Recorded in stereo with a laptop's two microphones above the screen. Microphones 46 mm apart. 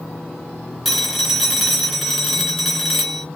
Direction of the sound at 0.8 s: 5° left (ahead or behind).